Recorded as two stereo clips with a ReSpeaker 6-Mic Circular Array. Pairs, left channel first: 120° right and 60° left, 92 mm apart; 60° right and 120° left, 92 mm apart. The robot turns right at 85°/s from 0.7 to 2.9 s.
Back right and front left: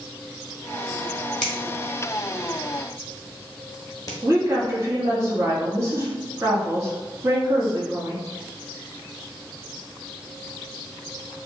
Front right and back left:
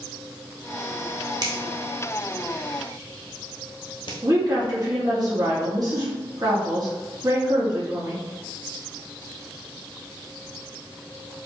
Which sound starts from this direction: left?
A woman speaking, at 4.2 s.